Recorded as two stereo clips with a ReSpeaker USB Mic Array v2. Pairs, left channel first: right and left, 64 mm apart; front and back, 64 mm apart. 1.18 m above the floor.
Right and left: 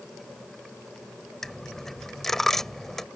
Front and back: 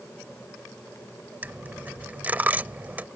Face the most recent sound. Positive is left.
turn(degrees=-165)